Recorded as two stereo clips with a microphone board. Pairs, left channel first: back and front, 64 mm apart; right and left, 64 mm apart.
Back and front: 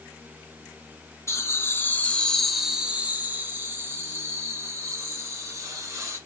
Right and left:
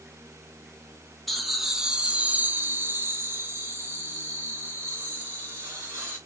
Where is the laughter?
Straight behind, 1.0 m; by 6.2 s 35° left, 3 m.